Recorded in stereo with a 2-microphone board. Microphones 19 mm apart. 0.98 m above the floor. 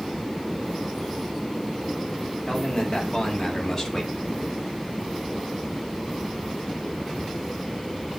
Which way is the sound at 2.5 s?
30° left (ahead or behind).